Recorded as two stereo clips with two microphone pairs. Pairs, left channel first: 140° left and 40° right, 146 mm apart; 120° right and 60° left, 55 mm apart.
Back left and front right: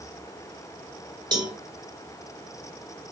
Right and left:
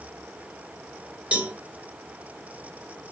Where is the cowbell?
5° left, 2.0 m.